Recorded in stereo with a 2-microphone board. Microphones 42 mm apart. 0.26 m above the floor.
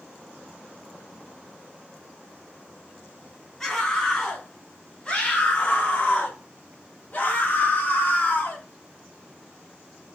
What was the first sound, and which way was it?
A scream, 10° left (ahead or behind).